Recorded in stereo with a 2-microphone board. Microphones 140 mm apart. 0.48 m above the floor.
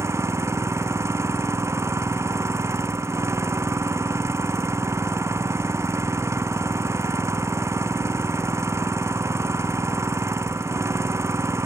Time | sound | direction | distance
0.0 | an engine running | 20° right (ahead or behind) | ?